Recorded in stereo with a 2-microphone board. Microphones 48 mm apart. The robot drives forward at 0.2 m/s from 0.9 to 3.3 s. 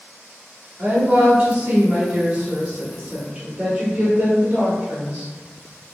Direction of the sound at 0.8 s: 25° right (ahead or behind).